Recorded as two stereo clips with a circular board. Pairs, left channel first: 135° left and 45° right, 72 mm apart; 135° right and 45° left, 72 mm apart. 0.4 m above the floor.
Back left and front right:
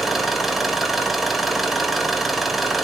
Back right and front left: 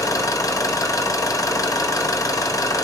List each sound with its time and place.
0.0 s an engine running: 130° right, 1.4 m